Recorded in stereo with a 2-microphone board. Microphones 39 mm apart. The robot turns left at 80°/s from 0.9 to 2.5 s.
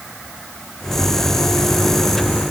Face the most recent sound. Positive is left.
No sound to turn to.